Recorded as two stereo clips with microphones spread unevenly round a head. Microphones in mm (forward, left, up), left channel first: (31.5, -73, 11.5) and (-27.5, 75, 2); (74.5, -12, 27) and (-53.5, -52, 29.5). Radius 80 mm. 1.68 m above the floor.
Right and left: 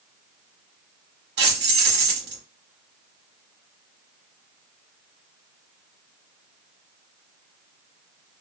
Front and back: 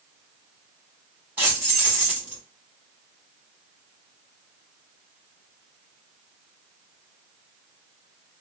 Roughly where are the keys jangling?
Behind left.